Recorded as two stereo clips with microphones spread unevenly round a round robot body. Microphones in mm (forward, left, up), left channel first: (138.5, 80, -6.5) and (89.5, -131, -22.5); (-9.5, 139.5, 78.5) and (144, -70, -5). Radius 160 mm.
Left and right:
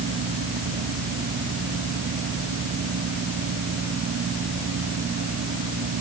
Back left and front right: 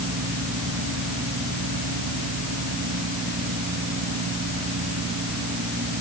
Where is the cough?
I don't hear a cough.